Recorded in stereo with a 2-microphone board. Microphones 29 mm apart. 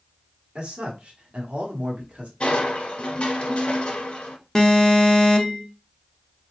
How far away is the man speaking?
About 1.4 m.